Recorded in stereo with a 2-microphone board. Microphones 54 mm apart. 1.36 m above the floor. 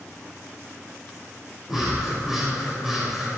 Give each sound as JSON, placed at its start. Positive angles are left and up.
{"t": 1.7, "sound": "breathing", "side_deg": -5, "distance_m": 7.0}